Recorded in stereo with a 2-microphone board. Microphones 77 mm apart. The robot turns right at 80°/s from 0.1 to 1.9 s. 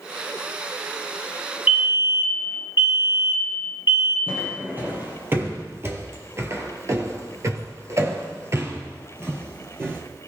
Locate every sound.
1.7 s a fire alarm: 20° right (ahead or behind), 1.8 m; by 4.2 s 35° right (ahead or behind), 1.8 m
4.3 s footsteps: 25° right (ahead or behind), 3 m; by 10.0 s 30° right (ahead or behind), 2.5 m